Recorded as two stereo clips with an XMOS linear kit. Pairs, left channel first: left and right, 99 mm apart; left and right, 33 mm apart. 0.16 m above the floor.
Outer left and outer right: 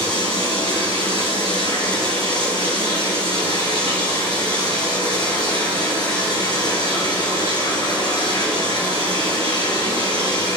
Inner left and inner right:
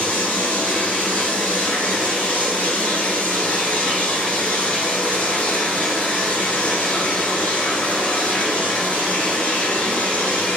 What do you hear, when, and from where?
0.0 s running water: 50° left (ahead or behind), 2.5 m